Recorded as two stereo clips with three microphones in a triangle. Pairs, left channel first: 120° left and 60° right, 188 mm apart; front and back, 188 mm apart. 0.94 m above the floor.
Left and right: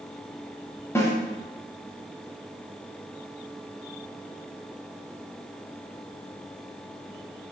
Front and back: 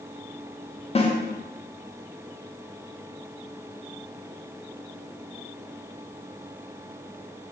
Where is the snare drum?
50° left, 0.6 m.